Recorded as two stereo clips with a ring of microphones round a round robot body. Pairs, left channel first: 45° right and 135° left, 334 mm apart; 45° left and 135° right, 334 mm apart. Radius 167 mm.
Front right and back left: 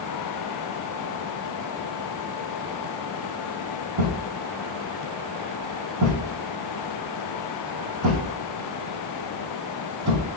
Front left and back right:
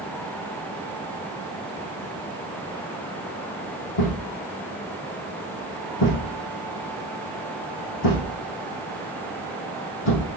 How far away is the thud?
About 3 m.